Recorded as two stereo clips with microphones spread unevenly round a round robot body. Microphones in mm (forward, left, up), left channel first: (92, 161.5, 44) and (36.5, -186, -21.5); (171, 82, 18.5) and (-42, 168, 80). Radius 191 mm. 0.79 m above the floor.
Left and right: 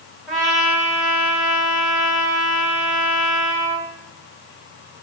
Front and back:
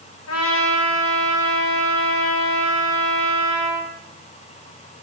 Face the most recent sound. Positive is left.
turn(degrees=-10)